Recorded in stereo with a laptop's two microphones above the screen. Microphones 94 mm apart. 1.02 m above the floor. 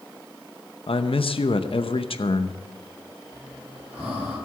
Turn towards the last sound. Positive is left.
turn(degrees=-20)  # may be behind; listen again after turning